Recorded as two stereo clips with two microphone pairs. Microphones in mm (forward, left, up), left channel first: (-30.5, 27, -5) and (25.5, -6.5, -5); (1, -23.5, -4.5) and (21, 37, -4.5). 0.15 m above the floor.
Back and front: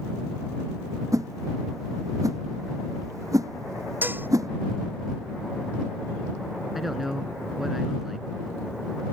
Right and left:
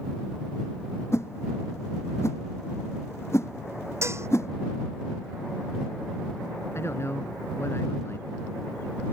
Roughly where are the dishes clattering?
Ahead left.